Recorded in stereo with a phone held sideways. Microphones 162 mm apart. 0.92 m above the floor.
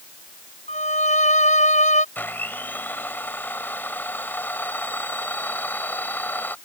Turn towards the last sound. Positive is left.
turn(degrees=10)  # may be behind; listen again after turning